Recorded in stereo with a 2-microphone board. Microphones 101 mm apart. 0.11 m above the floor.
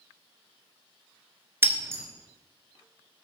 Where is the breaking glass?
25° right (ahead or behind), 0.6 m.